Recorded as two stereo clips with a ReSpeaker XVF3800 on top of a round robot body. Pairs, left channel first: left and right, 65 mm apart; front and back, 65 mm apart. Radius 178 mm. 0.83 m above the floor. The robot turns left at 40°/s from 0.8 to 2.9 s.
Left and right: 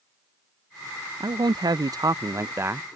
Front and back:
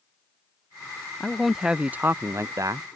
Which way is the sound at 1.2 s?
85° right.